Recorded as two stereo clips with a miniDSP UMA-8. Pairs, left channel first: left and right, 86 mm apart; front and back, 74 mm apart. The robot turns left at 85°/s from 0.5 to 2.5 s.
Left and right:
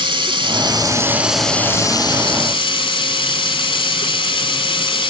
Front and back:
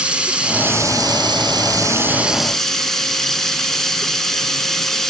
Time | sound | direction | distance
0.0 | running water | 105° right | 0.9 m